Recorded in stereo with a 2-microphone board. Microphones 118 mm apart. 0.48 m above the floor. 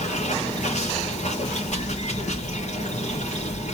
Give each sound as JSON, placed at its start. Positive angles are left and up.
{"t": 0.0, "sound": "running water", "side_deg": 80, "distance_m": 7.5}